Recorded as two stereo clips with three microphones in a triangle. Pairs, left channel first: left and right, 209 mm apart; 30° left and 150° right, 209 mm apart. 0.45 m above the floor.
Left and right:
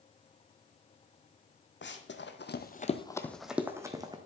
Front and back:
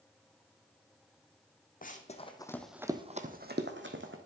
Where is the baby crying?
No baby crying in this recording.